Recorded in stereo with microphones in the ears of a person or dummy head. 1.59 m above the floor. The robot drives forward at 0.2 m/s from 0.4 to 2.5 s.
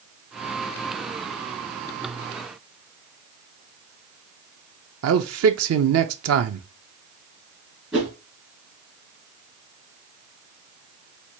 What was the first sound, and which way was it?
A man speaking, 75° right (ahead or behind).